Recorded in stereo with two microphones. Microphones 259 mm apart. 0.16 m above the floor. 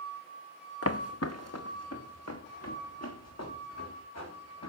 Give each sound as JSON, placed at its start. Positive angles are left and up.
{"t": 0.8, "sound": "footsteps", "side_deg": 60, "distance_m": 0.9}